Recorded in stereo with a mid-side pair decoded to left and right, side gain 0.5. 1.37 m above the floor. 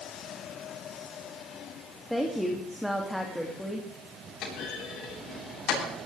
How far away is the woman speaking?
About 2.5 m.